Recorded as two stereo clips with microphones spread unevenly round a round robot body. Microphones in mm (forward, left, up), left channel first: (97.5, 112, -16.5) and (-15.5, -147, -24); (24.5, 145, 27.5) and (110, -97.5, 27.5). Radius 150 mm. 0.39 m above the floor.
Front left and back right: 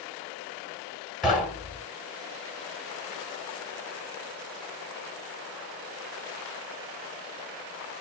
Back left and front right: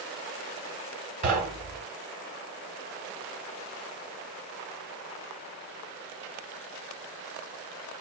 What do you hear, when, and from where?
1.2 s knocking: 25° right, 1.4 m